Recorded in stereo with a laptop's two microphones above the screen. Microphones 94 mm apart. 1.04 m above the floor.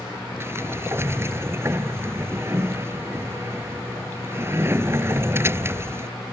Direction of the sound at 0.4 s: 25° right (ahead or behind).